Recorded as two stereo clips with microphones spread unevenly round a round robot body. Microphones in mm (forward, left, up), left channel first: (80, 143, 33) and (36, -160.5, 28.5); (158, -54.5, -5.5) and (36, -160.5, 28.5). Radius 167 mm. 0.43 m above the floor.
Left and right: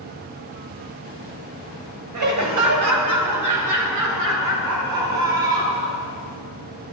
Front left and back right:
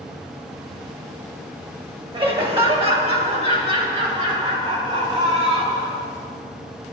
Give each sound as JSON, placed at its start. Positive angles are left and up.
{"t": 2.1, "sound": "laughter", "azimuth_deg": -75, "distance_m": 2.5}